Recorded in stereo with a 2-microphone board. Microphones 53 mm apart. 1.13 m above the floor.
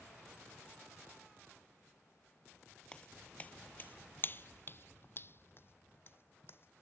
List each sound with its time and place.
2.9 s footsteps: 20° left (ahead or behind); by 6.8 s 45° left (ahead or behind)